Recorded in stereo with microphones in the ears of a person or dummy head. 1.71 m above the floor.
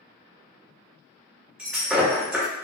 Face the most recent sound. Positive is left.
turn(degrees=-5)  # may be behind; listen again after turning